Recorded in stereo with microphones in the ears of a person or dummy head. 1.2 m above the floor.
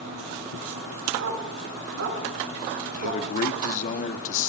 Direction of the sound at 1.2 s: 65° right (ahead or behind).